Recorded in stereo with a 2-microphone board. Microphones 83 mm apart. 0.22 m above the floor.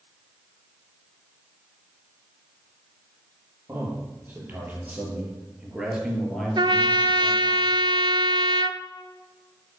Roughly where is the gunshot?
I don't hear a gunshot.